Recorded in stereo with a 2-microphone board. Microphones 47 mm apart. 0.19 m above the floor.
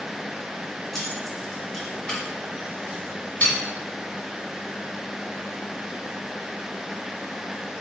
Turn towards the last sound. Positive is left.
turn(degrees=40)  # may be behind; listen again after turning